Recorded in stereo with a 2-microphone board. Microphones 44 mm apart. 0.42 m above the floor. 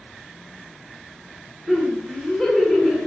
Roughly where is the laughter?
Centre.